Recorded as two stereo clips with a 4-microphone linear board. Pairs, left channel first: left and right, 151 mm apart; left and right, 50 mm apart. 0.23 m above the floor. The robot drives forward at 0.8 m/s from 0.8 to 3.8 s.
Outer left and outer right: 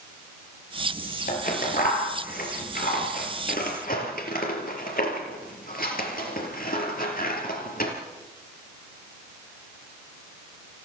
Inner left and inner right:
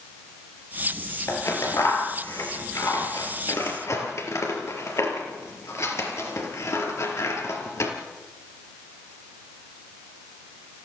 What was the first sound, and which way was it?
Scissors, 70° left (ahead or behind).